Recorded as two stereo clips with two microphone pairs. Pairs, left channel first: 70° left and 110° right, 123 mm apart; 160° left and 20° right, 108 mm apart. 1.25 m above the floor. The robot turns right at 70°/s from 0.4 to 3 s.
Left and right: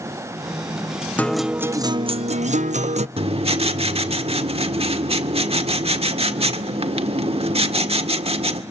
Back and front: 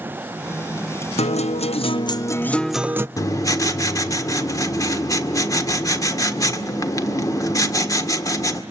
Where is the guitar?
145° left, 0.5 m; by 3.1 s 85° right, 0.5 m.